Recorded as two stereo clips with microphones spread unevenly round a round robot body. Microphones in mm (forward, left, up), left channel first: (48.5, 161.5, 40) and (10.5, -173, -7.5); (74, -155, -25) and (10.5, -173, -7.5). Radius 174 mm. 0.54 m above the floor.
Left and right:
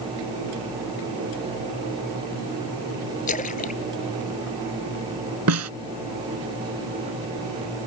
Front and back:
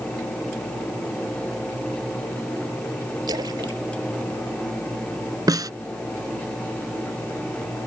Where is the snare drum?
145° right.